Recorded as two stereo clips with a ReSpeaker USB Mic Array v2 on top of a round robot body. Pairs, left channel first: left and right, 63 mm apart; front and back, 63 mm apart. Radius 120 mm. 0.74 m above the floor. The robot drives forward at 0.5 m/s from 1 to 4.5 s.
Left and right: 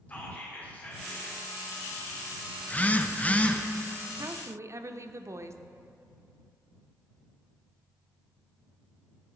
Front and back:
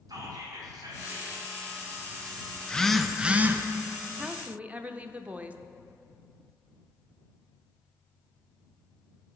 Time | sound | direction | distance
0.1 | whispering | 155° left | 2 m
2.6 | a phone buzzing | 50° left | 0.7 m
4.2 | a woman speaking | 95° right | 0.6 m